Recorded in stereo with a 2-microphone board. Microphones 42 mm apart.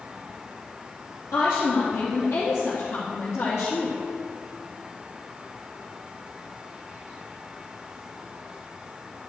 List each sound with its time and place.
1.3 s a woman speaking: 60° left (ahead or behind), 3 m; by 4.0 s 65° left (ahead or behind), 5 m